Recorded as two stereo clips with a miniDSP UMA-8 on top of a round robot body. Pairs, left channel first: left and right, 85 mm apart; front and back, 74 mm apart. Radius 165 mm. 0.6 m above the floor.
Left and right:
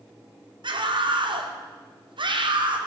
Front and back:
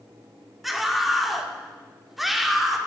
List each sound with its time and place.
0.6 s a scream: 90° right, 2.5 m